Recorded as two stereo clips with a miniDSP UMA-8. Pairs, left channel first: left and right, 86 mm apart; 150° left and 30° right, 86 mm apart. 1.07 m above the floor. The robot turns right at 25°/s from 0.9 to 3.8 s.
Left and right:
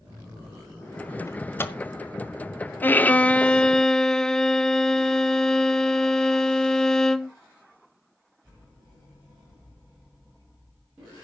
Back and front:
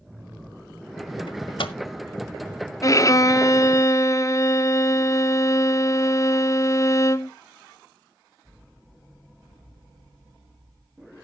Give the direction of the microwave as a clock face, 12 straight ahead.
7 o'clock.